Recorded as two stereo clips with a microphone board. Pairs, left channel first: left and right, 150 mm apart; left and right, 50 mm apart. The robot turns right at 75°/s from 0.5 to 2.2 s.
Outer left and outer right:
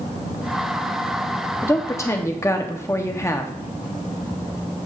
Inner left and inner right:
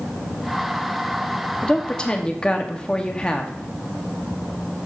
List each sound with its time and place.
1.6 s a woman speaking: 20° left (ahead or behind), 0.6 m